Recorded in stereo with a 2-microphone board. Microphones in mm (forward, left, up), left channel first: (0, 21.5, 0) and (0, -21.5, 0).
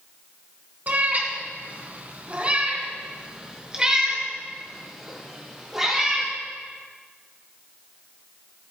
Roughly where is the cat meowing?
Right.